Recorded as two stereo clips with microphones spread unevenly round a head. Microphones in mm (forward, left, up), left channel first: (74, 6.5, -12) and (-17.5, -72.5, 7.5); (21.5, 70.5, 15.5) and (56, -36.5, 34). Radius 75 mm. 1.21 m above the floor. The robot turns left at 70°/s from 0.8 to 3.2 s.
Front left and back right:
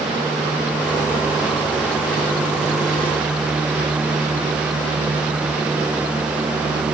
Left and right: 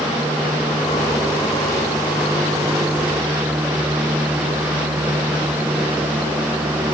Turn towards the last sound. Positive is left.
No sound to turn to.